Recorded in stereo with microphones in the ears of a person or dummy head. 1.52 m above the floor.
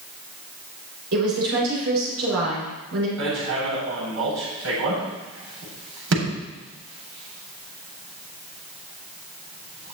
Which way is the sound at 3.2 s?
80° right.